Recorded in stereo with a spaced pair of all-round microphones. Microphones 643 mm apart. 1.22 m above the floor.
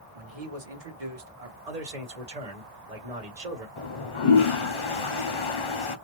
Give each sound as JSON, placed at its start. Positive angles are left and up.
{"t": 0.1, "sound": "a man speaking", "side_deg": -60, "distance_m": 1.0}
{"t": 1.7, "sound": "a man speaking", "side_deg": -75, "distance_m": 1.2}
{"t": 3.8, "sound": "a toilet flushing", "side_deg": 50, "distance_m": 0.6}